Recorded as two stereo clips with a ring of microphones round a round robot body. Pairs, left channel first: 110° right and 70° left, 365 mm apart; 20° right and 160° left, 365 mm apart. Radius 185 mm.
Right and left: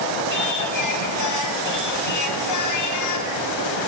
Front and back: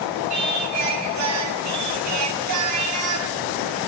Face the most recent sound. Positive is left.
turn(degrees=-155)